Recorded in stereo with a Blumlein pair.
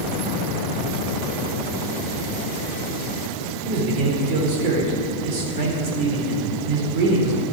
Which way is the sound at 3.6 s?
45° right.